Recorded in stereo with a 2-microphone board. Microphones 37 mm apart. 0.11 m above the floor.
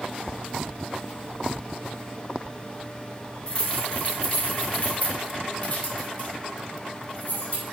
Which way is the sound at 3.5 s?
30° left (ahead or behind).